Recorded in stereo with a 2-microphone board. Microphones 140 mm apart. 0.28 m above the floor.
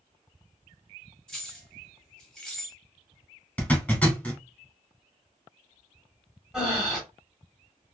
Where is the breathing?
5° right (ahead or behind), 1.1 m.